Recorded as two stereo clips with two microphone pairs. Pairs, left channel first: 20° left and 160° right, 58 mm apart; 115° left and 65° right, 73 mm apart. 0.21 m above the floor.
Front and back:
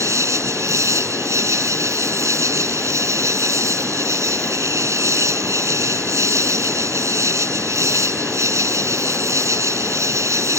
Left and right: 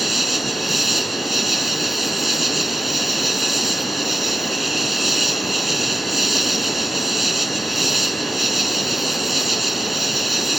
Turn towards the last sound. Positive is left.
turn(degrees=-155)